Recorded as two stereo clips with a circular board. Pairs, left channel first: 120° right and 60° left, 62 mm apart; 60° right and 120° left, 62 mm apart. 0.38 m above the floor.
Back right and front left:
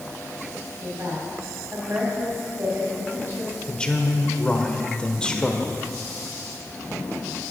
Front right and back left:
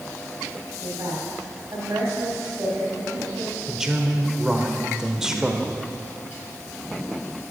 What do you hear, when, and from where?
0.8 s a woman speaking: 90° left, 2.5 m
3.7 s a man speaking: 170° right, 1.0 m